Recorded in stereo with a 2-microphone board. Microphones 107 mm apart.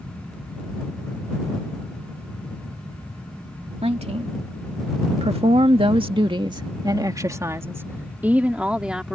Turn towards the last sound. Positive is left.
turn(degrees=-5)  # may be behind; listen again after turning